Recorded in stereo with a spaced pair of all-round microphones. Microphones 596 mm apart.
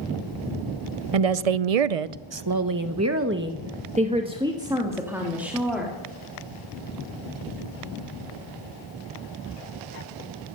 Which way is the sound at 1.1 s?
65° right (ahead or behind).